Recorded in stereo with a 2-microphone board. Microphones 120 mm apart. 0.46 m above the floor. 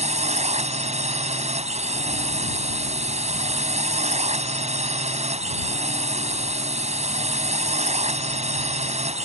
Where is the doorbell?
No doorbell in this recording.